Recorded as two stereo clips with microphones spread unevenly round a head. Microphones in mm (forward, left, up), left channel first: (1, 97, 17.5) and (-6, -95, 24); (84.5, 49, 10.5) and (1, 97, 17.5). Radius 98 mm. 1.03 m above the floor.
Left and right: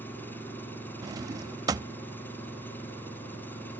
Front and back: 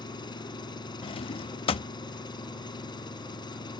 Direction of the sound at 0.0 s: 5° left.